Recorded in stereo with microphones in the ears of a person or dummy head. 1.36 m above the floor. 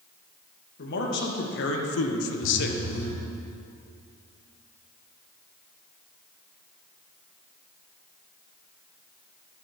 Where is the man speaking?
50° left (ahead or behind), 2 m.